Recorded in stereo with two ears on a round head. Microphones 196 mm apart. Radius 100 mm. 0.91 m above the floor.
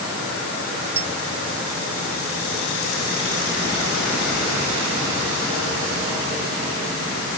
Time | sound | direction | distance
1.0 | a clink | 45° right (ahead or behind) | ?